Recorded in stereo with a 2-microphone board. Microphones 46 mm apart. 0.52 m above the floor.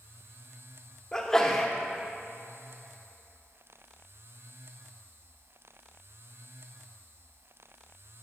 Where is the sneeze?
10° left (ahead or behind), 0.8 m.